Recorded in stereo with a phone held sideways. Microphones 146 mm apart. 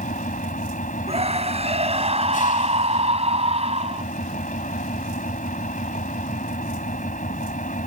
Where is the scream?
45° right (ahead or behind).